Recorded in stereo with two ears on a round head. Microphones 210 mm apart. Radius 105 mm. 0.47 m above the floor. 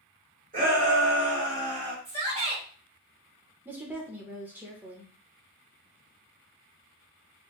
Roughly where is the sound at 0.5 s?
Right.